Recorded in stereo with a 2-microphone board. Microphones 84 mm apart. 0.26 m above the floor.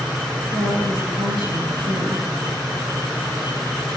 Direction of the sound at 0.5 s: 75° right (ahead or behind).